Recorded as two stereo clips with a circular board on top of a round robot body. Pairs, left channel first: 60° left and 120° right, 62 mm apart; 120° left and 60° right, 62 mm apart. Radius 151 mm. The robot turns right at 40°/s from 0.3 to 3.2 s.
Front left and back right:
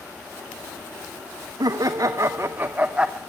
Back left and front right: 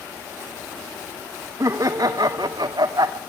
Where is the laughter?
100° right, 0.8 m; by 3.2 s 35° right, 0.8 m.